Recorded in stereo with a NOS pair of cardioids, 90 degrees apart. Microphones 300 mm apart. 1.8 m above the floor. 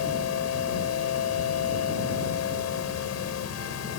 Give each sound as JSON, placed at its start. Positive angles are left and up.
{"t": 0.0, "sound": "a machine running", "azimuth_deg": 65}